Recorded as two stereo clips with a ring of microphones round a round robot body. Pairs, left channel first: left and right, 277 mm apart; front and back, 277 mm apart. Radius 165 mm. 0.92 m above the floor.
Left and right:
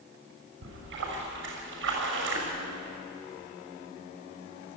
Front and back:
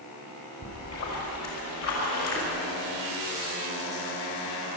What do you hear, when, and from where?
0.6 s a splash: 45° right, 5.5 m